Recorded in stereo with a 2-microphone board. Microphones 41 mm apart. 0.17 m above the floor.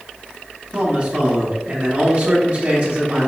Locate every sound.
0.7 s a man speaking: 30° right (ahead or behind), 1.2 m